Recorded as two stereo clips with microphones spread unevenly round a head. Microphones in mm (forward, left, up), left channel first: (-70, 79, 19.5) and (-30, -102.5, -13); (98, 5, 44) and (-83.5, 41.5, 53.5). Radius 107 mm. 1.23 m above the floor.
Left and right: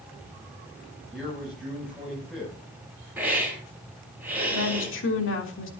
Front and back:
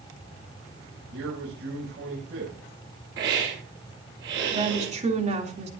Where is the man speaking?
170° right, 8 m.